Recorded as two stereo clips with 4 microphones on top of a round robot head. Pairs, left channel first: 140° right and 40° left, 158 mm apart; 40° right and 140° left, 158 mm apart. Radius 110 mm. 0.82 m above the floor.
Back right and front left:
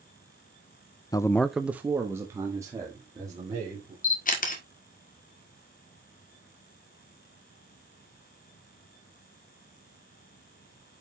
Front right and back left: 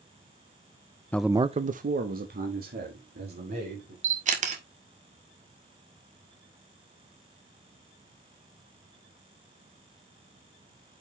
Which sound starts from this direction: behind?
A camera shutter, at 4.0 s.